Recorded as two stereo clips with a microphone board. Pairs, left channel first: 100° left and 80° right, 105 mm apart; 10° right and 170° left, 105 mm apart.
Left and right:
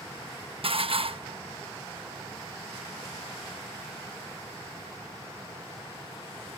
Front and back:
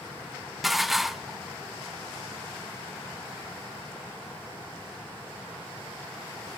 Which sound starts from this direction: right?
Dishes clattering, at 0.6 s.